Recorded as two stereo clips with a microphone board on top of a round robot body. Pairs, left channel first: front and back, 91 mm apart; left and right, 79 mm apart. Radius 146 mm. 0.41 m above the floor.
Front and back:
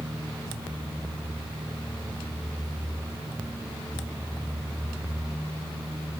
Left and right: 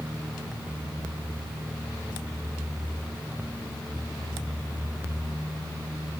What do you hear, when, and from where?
Only background noise.